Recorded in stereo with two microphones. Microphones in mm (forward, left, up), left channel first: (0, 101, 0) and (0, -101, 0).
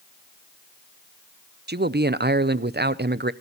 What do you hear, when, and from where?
1.7 s a man speaking: 55° right (ahead or behind), 0.7 m